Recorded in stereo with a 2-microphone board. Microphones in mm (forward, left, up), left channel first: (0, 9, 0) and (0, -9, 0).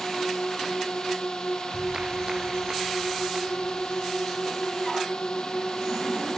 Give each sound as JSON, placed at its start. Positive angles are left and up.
{"t": 0.0, "sound": "a drone", "side_deg": 50}
{"t": 1.7, "sound": "a clap", "side_deg": -45}